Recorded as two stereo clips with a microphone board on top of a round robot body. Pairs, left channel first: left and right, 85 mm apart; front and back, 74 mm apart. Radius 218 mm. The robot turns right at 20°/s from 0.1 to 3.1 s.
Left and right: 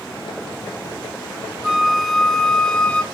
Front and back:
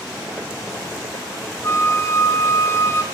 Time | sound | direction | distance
1.6 | a flute | 10° right | 1.6 m